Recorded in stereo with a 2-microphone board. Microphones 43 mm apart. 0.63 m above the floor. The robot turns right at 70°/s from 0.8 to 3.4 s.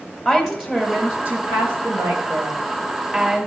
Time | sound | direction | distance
0.2 | a woman speaking | 170° right | 2 m